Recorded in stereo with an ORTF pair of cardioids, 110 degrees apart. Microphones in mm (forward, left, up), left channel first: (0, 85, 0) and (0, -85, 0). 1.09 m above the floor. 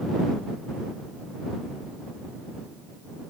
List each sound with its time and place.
Only background noise.